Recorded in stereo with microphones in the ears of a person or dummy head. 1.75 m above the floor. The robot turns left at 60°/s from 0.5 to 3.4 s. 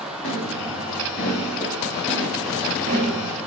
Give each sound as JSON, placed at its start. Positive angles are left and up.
{"t": 0.2, "sound": "footsteps", "side_deg": 60, "distance_m": 8.0}